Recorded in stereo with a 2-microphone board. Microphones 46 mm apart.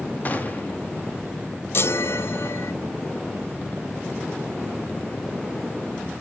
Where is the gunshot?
35° left (ahead or behind), 1.5 m.